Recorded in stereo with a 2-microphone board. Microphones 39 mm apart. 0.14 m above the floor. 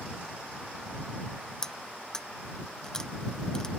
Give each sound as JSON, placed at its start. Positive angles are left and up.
{"t": 1.6, "sound": "cutlery clinking", "side_deg": 15}